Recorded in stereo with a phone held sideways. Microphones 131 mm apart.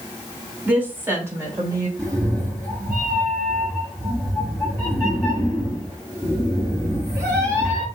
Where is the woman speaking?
10° right (ahead or behind), 2.5 m; by 1.9 s 30° right (ahead or behind), 2.5 m.